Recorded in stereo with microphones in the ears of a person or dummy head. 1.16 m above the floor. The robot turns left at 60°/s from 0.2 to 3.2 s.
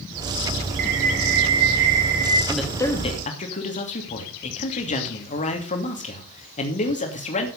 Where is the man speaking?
175° right, 2.5 m; by 7.5 s 140° left, 2.5 m.